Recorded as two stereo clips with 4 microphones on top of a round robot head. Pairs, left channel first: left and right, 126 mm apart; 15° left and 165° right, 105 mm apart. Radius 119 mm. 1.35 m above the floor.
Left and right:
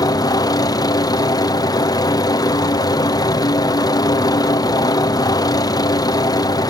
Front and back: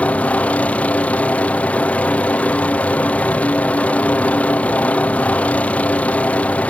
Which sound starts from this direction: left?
A helicopter, at 0.0 s.